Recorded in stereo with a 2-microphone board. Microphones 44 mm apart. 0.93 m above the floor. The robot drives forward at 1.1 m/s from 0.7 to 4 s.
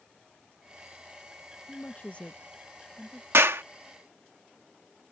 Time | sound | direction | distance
1.7 | a woman speaking | 40° left (ahead or behind) | ?
3.3 | a clap | 70° right (ahead or behind) | ?